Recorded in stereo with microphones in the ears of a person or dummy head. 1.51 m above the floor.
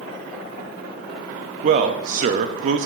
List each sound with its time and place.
1.6 s a man speaking: 40° right (ahead or behind), 0.5 m